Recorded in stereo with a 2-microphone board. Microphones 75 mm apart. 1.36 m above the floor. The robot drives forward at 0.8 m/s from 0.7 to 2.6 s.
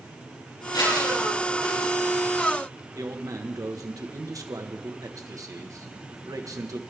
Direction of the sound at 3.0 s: 50° right (ahead or behind).